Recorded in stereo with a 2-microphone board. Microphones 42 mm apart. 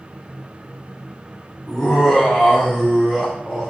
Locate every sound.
1.7 s laughter: 10° right (ahead or behind), 2.0 m